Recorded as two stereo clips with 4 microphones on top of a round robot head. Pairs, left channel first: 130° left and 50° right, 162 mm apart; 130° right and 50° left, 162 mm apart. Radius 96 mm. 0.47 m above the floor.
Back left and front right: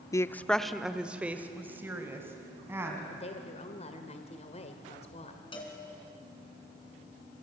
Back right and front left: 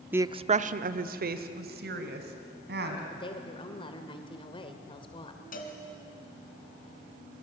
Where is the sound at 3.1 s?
175° left, 1.8 m.